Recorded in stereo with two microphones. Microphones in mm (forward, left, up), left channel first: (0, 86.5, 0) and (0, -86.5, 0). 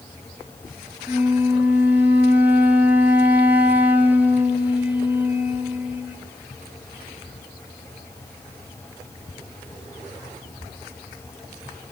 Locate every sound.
1.1 s a flute: 10° right (ahead or behind), 3.5 m